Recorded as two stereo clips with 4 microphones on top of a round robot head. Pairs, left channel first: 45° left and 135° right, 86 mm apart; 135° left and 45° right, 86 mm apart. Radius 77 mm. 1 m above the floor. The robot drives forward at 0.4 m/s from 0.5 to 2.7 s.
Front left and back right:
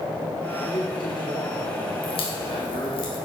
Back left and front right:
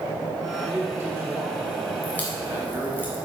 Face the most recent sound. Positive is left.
turn(degrees=65)